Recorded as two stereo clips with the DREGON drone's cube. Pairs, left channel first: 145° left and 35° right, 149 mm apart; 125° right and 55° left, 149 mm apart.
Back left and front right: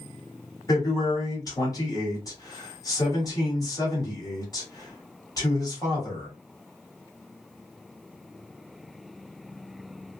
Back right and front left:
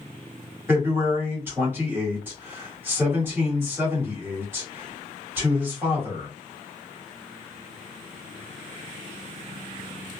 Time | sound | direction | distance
0.7 | a man speaking | 115° left | 1.5 m